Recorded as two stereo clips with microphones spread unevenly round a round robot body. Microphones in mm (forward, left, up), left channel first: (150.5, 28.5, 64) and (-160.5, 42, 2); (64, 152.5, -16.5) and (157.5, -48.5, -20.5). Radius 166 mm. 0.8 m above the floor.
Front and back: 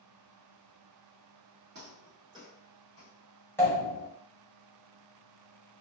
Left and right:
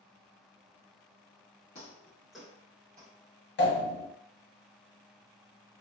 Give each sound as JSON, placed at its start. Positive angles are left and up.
{"t": 1.8, "sound": "footsteps", "azimuth_deg": 130, "distance_m": 0.8}
{"t": 3.6, "sound": "a pop", "azimuth_deg": 85, "distance_m": 1.3}